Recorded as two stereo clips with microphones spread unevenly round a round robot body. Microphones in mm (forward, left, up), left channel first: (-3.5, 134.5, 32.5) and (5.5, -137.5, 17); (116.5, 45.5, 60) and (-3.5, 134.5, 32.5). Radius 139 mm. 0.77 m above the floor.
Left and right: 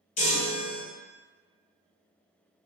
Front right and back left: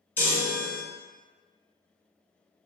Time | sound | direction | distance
0.2 | a chime | 35° left | 1.3 m